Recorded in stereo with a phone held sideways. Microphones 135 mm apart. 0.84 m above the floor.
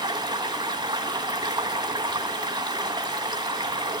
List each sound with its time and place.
0.0 s running water: 30° right (ahead or behind), 1.5 m